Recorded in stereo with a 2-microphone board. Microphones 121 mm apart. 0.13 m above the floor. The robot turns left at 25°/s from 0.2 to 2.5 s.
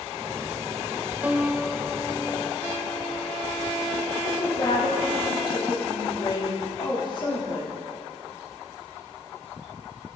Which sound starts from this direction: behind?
A piano, at 1.2 s.